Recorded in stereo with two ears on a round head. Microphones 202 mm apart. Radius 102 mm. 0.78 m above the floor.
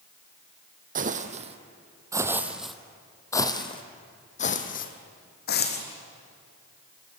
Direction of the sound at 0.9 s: 40° right (ahead or behind).